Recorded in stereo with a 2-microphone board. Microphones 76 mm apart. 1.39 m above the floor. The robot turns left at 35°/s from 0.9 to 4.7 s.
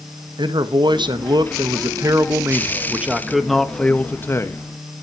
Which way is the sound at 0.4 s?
90° right.